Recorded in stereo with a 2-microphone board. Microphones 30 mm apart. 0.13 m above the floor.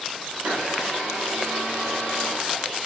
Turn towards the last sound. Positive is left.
turn(degrees=-70)  # may be behind; listen again after turning